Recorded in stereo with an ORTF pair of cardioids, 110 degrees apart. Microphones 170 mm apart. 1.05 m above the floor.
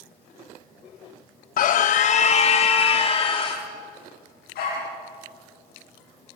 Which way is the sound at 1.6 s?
55° left.